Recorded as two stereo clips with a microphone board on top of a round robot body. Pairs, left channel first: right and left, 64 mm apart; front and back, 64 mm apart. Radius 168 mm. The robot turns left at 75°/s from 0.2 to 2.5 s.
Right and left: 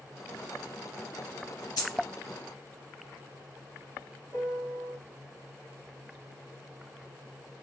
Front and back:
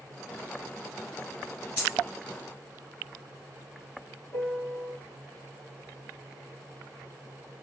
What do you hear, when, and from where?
1.8 s a dropped coin: 65° right, 0.7 m; by 2.0 s 85° right, 0.7 m
4.3 s a piano: 55° left, 1.8 m